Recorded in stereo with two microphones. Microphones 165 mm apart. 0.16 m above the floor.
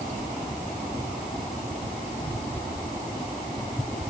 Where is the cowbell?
No cowbell in this recording.